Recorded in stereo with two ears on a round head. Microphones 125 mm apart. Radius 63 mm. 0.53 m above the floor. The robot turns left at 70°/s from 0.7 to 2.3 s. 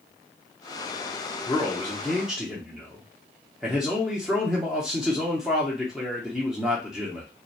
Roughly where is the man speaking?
Centre.